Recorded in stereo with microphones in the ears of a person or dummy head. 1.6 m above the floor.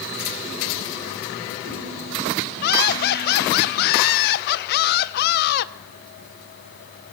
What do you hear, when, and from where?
2.6 s laughter: 55° left (ahead or behind), 1.2 m